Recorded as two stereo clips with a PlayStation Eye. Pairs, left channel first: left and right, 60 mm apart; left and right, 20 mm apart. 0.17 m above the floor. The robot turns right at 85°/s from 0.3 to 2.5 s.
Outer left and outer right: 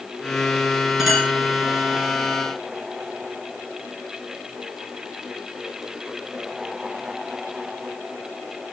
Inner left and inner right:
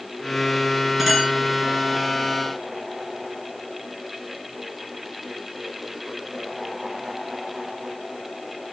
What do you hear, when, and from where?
1.0 s a clink: 5° right (ahead or behind), 8.5 m; by 1.3 s 20° left (ahead or behind), 8.5 m